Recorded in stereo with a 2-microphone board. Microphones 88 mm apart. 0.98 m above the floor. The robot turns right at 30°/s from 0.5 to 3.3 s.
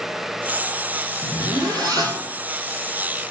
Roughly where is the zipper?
Ahead right.